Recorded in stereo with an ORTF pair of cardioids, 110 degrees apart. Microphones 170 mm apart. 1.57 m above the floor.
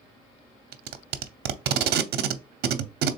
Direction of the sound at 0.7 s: 70° right.